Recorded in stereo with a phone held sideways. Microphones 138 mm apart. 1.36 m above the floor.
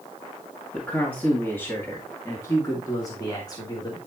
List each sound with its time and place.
0.7 s a man speaking: 10° left (ahead or behind), 2 m; by 4.0 s 30° left (ahead or behind), 3.5 m